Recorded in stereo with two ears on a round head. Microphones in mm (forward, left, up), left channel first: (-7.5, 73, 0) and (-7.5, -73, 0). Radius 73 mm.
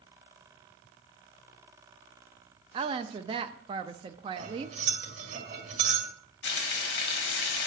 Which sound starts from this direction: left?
Frying, at 6.4 s.